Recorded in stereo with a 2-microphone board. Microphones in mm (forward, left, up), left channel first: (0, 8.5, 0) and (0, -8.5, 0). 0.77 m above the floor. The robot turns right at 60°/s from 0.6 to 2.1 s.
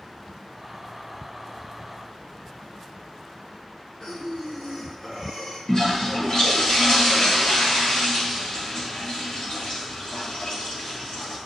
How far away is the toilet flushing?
About 5.5 m.